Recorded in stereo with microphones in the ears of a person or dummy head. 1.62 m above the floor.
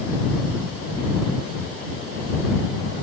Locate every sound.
Only background noise.